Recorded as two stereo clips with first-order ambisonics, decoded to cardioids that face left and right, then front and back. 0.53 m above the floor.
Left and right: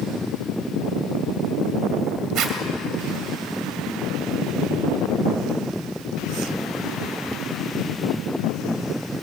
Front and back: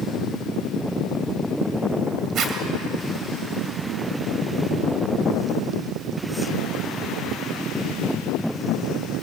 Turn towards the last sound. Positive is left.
turn(degrees=-130)